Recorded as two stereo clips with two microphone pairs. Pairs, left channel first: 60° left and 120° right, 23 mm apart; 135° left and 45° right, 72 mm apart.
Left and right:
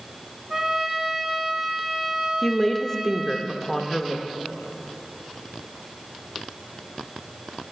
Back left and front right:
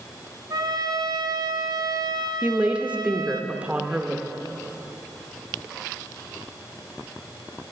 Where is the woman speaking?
5° left, 0.8 m.